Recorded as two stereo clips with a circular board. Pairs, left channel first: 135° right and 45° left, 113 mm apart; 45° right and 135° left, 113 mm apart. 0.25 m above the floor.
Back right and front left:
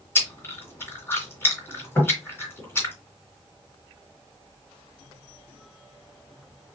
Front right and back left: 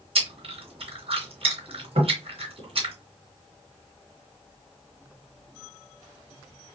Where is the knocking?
160° left, 3 m.